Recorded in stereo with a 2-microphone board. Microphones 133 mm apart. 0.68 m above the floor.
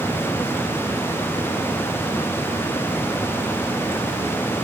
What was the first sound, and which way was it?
Only background noise.